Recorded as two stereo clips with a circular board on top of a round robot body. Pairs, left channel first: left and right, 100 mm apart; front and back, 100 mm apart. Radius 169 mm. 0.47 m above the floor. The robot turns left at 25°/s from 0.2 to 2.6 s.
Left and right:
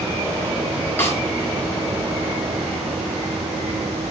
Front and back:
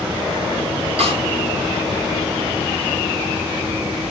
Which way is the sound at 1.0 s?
160° left.